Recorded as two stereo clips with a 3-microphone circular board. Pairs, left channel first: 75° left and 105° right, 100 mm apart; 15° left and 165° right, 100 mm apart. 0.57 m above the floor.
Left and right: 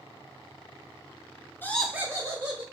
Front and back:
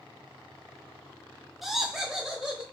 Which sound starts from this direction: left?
Laughter, at 1.6 s.